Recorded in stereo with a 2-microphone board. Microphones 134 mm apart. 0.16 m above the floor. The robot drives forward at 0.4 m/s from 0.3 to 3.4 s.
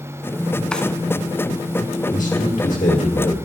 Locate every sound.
0.7 s a drawer: 5° left (ahead or behind), 0.8 m
2.1 s a man speaking: 70° left (ahead or behind), 3 m; by 3.4 s 65° left (ahead or behind), 3 m